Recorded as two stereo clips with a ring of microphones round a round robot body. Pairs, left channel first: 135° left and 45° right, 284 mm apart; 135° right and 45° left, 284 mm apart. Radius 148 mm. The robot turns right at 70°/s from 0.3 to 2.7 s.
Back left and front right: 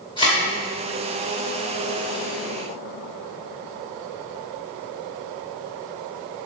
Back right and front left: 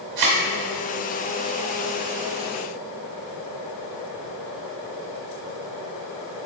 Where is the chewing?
I don't hear chewing.